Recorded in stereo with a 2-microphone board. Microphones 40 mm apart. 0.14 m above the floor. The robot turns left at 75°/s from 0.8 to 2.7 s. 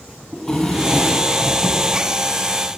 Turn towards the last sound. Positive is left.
turn(degrees=-130)